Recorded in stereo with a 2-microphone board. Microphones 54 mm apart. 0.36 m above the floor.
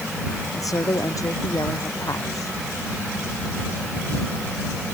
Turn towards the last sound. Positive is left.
turn(degrees=85)